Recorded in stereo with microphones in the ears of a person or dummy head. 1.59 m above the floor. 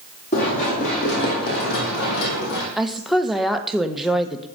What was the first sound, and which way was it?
Running footsteps, 50° left (ahead or behind).